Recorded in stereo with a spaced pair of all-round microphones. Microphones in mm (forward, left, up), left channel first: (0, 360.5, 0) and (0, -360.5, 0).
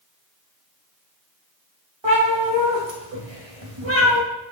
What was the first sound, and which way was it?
A cat meowing, 40° right (ahead or behind).